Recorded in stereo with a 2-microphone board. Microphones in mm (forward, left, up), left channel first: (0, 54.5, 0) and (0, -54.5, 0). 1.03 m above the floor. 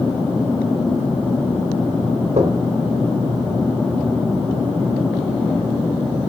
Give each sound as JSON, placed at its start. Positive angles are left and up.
{"t": 2.4, "sound": "knocking", "side_deg": -80, "distance_m": 3.0}